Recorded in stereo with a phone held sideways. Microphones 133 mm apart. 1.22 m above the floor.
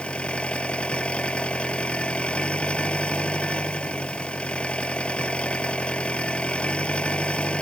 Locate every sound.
0.0 s an engine running: 10° left (ahead or behind)